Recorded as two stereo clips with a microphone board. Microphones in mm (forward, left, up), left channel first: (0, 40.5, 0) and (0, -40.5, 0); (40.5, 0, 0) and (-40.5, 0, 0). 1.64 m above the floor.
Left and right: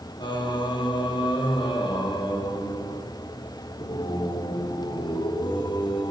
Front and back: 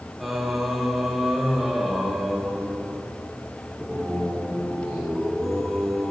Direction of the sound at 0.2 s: 90° left.